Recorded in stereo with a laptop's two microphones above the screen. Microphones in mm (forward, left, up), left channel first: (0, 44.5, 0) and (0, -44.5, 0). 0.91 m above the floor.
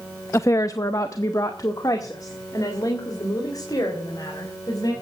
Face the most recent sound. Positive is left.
turn(degrees=45)  # may be behind; listen again after turning